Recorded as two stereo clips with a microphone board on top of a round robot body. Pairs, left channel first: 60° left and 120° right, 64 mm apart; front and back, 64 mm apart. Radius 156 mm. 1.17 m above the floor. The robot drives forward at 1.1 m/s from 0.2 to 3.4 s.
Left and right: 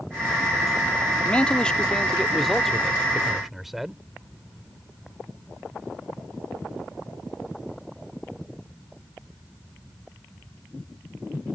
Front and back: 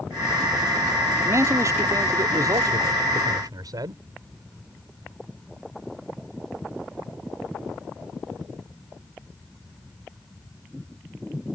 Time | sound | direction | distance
1.2 | a man speaking | 130° left | ?